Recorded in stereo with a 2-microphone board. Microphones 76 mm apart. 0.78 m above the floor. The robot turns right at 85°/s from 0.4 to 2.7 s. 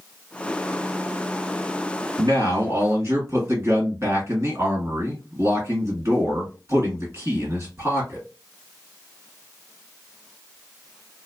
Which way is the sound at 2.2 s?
95° right.